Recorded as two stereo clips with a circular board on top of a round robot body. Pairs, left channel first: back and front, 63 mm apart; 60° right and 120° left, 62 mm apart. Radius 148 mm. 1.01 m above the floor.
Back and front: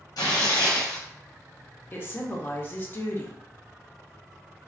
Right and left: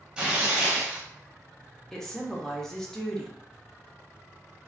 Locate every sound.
0.2 s tearing paper: 165° right, 0.7 m
1.9 s a woman speaking: 140° right, 0.8 m